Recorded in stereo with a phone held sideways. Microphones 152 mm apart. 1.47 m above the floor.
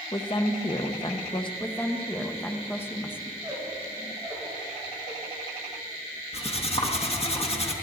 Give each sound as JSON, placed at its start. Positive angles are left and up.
{"t": 0.1, "sound": "a woman speaking", "side_deg": 35, "distance_m": 1.1}
{"t": 1.6, "sound": "a woman speaking", "side_deg": 15, "distance_m": 1.2}
{"t": 3.4, "sound": "a squeak", "side_deg": -5, "distance_m": 6.0}
{"t": 6.3, "sound": "cutlery clinking", "side_deg": 40, "distance_m": 1.2}